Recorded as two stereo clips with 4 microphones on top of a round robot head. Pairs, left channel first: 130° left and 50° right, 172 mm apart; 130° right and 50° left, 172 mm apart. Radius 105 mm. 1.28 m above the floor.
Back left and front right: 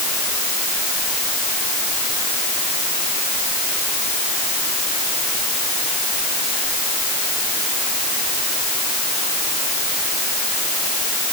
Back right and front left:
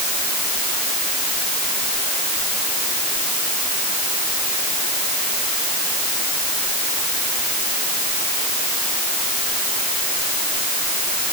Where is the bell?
I don't hear a bell.